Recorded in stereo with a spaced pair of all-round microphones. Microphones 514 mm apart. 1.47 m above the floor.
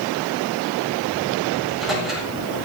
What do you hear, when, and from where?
1.6 s a microwave: centre (ahead or behind), 8 m